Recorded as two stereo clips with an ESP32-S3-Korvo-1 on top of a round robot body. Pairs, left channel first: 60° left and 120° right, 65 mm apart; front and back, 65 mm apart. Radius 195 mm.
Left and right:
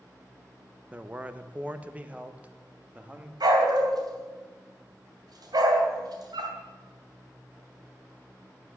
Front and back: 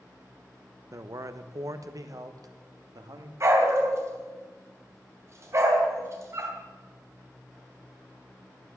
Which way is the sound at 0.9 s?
Straight behind.